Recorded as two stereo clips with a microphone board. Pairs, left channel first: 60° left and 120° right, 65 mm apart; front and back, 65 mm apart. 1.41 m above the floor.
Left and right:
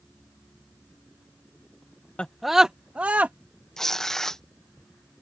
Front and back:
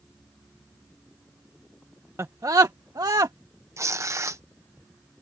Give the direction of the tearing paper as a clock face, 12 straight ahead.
7 o'clock.